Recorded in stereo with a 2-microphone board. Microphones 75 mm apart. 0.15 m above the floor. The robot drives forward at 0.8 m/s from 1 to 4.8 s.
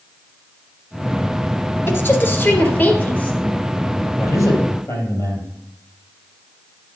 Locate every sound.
1.9 s a woman speaking: 35° left (ahead or behind), 1.6 m; by 3.4 s 20° left (ahead or behind), 2.5 m
4.2 s a man speaking: 45° left (ahead or behind), 3.5 m; by 5.5 s 40° left (ahead or behind), 4 m